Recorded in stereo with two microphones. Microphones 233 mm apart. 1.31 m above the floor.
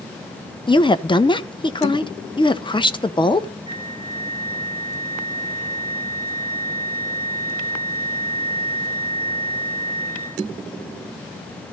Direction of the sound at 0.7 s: 20° left (ahead or behind).